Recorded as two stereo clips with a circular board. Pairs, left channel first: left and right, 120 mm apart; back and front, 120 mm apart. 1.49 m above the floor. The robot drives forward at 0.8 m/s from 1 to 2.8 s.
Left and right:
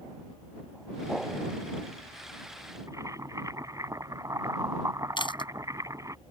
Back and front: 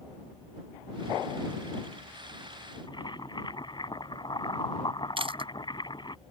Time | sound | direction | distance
2.9 | boiling | 145° right | ?
5.2 | chewing | 40° left | ?